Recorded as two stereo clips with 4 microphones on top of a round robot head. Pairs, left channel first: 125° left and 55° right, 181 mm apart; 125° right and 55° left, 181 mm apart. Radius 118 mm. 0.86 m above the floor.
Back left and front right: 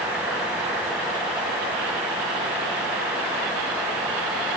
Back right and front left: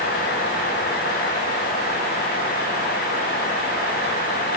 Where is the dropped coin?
No dropped coin in this recording.